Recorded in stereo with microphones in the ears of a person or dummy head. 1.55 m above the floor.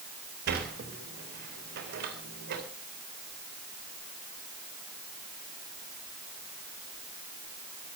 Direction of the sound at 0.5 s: 50° right (ahead or behind).